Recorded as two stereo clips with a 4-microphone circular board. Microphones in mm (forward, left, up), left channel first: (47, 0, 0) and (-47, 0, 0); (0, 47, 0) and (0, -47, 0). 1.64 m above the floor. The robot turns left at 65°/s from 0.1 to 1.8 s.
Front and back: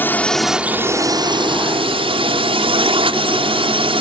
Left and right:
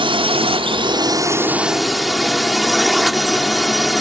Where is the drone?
70° right; by 4.0 s straight behind.